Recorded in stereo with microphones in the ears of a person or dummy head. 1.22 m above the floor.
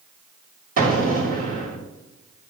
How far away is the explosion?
About 2.5 m.